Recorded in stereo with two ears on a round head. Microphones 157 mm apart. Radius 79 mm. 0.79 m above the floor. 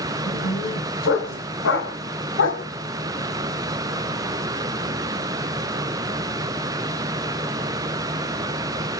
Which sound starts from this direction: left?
A dog barking, at 0.3 s.